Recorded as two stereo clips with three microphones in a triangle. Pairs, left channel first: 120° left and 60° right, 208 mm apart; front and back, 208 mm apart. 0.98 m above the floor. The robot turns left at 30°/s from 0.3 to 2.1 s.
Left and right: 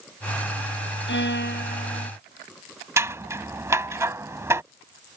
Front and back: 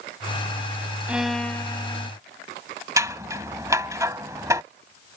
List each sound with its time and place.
1.1 s a violin: 95° left; by 2.1 s 65° left
3.0 s scissors: 120° right